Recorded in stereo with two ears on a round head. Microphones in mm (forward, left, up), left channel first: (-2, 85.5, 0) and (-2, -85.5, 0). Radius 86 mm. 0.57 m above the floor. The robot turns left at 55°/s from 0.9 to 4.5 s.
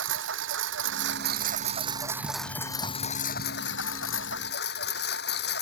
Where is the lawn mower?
100° right; by 5.6 s 65° left.